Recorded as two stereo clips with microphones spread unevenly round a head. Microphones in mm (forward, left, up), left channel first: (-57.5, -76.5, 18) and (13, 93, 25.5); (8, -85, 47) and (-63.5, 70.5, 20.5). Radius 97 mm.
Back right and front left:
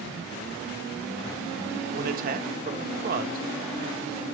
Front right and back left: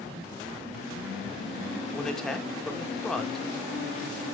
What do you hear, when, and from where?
1.9 s a man speaking: 25° left, 1.4 m